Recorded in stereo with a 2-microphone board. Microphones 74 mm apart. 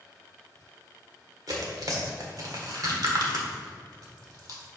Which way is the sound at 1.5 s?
55° right (ahead or behind).